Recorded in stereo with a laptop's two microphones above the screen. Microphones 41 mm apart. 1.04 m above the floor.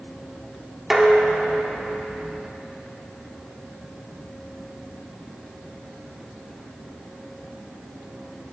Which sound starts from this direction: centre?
Dishes clattering, at 0.9 s.